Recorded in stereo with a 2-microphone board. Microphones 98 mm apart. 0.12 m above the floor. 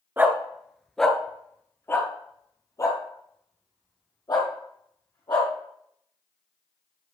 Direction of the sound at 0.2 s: 20° right (ahead or behind).